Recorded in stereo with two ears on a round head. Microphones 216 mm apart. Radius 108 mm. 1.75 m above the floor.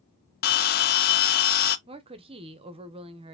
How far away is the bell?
About 0.5 m.